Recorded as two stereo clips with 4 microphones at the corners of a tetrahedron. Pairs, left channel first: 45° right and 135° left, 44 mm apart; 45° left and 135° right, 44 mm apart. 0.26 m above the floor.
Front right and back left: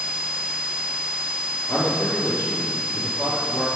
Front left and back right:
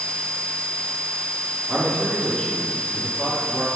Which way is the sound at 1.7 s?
45° right.